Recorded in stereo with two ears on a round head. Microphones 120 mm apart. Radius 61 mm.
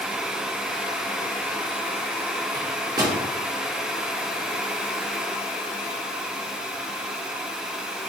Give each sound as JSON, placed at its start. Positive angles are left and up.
{"t": 2.5, "sound": "a microwave", "side_deg": -30, "distance_m": 1.7}